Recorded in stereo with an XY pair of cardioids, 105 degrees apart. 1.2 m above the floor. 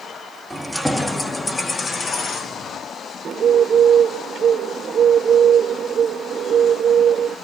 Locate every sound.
0.5 s keys jangling: 5° right, 1.7 m; by 2.8 s 55° left, 2 m
3.2 s a bird: 55° right, 1.4 m